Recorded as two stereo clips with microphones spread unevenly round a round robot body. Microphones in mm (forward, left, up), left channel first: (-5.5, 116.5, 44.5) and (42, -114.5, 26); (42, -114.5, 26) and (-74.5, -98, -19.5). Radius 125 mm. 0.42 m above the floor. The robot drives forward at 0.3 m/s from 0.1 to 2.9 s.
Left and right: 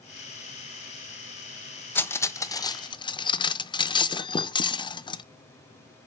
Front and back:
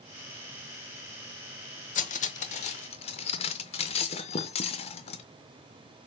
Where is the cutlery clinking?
20° left, 0.7 m; by 5.2 s 35° left, 0.5 m.